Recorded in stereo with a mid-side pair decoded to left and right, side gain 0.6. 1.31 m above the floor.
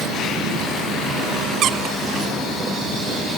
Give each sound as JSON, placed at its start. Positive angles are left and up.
{"t": 1.6, "sound": "a squeak", "azimuth_deg": -55, "distance_m": 0.9}